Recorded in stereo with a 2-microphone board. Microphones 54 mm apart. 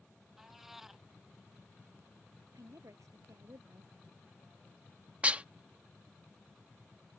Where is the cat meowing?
5° right (ahead or behind).